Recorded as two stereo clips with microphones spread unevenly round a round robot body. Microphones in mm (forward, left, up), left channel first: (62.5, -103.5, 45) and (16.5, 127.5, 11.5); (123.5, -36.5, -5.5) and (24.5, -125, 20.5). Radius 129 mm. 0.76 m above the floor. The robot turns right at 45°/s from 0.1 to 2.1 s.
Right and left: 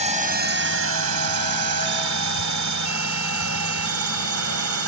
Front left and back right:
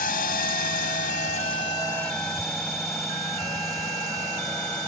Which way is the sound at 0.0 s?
40° left.